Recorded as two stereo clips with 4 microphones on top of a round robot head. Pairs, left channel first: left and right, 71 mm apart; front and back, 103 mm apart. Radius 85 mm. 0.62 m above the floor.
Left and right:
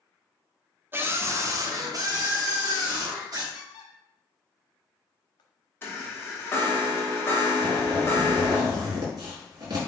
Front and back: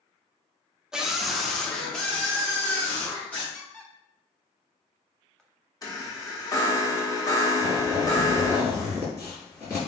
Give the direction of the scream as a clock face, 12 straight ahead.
3 o'clock.